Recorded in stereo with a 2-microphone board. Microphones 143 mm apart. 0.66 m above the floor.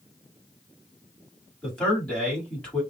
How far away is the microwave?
I don't hear a microwave.